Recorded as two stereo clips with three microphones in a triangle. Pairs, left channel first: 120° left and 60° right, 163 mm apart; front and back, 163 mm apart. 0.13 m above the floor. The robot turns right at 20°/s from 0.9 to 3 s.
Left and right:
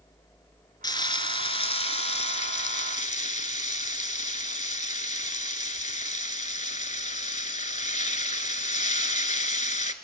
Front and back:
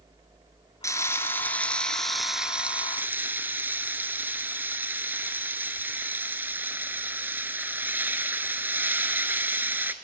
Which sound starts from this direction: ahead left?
Frying, at 0.8 s.